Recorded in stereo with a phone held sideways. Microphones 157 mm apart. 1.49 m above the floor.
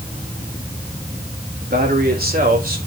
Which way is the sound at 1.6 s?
80° right.